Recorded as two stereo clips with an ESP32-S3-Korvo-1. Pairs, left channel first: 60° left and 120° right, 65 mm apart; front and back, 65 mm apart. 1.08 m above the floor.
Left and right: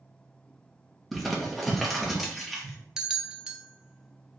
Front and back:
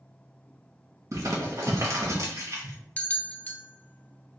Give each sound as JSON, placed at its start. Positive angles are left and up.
{"t": 1.1, "sound": "crumpling", "azimuth_deg": 145, "distance_m": 1.1}
{"t": 3.0, "sound": "a bell", "azimuth_deg": -50, "distance_m": 0.5}